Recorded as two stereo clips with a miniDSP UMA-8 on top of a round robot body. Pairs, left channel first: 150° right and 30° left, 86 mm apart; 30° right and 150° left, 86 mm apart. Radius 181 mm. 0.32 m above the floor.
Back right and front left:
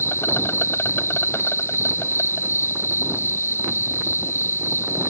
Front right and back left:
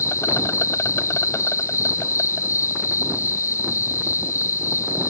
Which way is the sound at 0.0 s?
85° right.